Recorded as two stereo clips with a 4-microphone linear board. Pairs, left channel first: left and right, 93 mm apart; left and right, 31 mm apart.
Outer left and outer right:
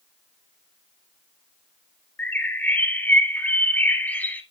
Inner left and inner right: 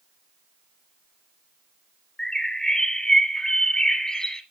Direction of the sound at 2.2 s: 20° left (ahead or behind).